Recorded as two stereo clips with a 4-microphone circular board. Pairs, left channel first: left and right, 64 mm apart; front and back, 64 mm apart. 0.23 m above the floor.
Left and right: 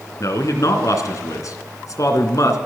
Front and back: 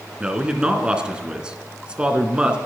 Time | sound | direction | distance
0.2 | a man speaking | 105° left | 2.5 m